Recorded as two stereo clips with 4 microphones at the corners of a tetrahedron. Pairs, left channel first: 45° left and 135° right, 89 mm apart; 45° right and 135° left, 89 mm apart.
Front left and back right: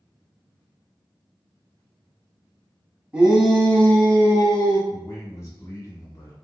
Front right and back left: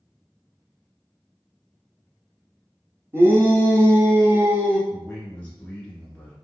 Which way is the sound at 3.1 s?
160° left.